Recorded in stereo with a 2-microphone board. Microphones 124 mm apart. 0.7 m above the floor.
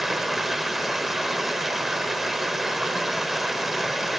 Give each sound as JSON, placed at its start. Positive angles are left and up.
{"t": 0.0, "sound": "running water", "side_deg": 0, "distance_m": 0.9}